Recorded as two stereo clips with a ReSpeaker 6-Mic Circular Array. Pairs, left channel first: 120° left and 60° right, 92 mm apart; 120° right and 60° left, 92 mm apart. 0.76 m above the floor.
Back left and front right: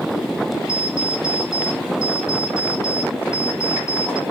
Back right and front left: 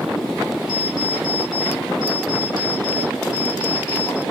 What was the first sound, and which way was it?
An alarm clock, 170° right.